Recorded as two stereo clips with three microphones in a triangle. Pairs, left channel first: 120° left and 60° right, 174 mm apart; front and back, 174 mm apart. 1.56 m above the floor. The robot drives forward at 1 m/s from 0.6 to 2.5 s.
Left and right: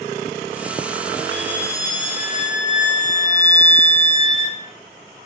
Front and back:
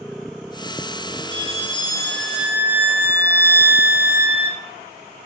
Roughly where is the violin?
Ahead left.